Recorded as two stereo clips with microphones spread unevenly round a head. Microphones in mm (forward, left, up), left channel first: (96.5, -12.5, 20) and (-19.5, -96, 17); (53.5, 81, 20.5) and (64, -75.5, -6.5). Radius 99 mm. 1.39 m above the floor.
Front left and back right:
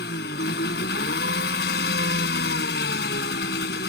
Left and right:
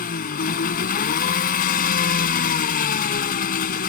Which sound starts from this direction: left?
An engine running, at 0.0 s.